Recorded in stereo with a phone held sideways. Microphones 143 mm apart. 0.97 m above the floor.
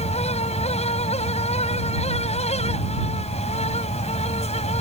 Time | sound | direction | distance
0.0 | a fan | 50° left (ahead or behind) | ?